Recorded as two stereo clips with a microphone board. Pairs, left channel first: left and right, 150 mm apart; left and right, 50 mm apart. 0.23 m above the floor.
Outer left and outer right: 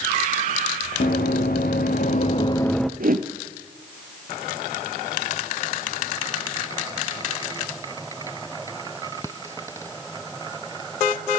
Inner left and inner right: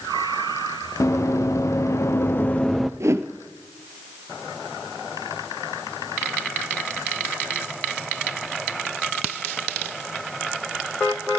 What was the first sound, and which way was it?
Running footsteps, 80° left.